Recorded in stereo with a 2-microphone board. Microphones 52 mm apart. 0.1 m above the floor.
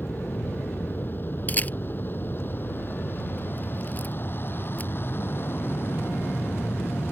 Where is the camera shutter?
35° left (ahead or behind).